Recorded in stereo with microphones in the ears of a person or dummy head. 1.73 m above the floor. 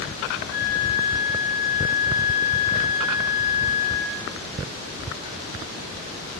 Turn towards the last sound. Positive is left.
turn(degrees=60)  # may be behind; listen again after turning